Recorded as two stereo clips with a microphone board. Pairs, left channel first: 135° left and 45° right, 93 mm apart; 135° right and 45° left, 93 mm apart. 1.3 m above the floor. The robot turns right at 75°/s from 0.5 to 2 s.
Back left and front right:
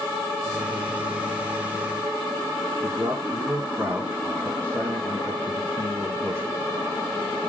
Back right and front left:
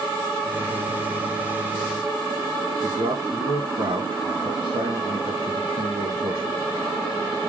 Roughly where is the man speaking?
Ahead.